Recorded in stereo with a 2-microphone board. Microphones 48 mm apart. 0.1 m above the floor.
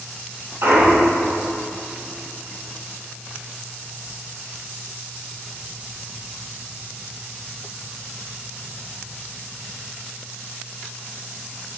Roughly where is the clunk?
Right.